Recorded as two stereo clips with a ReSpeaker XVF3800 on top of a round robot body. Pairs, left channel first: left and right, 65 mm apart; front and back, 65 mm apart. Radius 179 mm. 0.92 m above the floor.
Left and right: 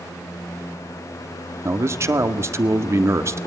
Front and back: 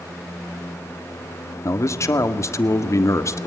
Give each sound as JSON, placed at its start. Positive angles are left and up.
{"t": 1.6, "sound": "a man speaking", "azimuth_deg": -40, "distance_m": 1.9}